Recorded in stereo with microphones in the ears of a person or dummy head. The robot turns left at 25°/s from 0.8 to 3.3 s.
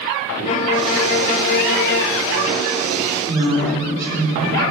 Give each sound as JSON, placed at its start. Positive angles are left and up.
{"t": 0.5, "sound": "a violin", "azimuth_deg": 130, "distance_m": 0.5}
{"t": 3.3, "sound": "a woman speaking", "side_deg": -15, "distance_m": 4.0}